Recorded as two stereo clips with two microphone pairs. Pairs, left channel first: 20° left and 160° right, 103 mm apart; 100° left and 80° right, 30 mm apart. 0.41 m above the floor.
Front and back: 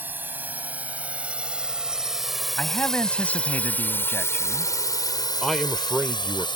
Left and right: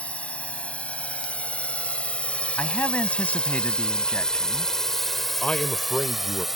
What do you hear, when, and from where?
0.0 s a drone: 130° left; by 6.6 s straight ahead
2.6 s a man speaking: 95° left
5.4 s a man speaking: 105° left